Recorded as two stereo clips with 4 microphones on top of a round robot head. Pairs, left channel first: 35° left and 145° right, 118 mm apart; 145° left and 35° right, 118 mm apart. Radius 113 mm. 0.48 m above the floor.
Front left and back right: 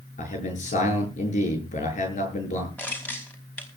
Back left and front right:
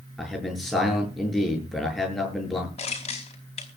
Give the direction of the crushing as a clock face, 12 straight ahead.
8 o'clock.